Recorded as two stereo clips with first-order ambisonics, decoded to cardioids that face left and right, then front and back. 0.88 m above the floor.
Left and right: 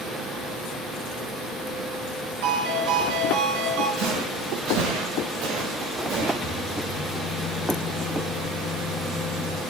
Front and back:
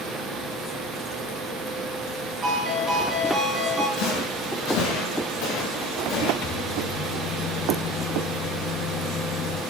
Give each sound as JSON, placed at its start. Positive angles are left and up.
{"t": 2.4, "sound": "a ringtone", "azimuth_deg": -110, "distance_m": 4.5}
{"t": 4.0, "sound": "footsteps", "azimuth_deg": -50, "distance_m": 6.0}
{"t": 6.4, "sound": "a microwave", "azimuth_deg": 25, "distance_m": 1.1}